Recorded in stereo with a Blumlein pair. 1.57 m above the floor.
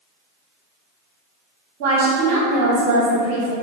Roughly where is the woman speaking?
Ahead right.